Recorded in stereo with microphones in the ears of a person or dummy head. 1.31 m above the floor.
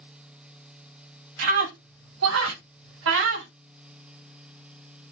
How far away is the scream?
About 2 m.